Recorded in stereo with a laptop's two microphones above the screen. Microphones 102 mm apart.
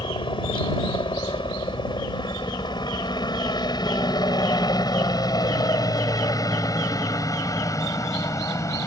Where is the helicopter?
55° left (ahead or behind); by 8.9 s 30° left (ahead or behind).